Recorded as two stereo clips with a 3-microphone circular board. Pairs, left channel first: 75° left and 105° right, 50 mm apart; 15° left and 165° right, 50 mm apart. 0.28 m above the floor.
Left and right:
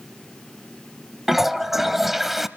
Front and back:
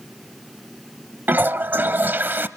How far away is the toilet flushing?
About 0.6 m.